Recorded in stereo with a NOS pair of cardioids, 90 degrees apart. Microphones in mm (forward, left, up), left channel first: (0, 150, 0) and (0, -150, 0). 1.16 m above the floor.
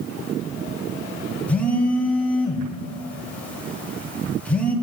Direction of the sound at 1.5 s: 5° left.